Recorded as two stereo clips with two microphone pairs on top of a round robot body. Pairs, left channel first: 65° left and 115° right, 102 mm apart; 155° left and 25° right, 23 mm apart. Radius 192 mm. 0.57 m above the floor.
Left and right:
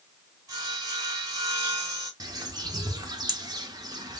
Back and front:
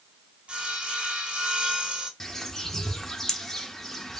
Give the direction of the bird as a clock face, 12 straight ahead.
4 o'clock.